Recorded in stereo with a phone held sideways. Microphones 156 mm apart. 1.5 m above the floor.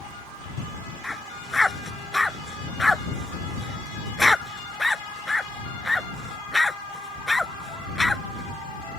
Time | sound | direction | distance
1.0 | a dog barking | centre (ahead or behind) | ?